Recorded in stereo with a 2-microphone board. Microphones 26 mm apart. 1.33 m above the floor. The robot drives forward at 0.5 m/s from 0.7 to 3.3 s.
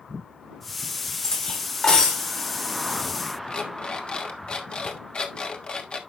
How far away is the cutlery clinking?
About 2.5 m.